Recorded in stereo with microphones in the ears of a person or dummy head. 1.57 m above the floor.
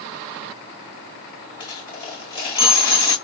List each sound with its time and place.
1.6 s a dropped coin: 25° left (ahead or behind), 1.9 m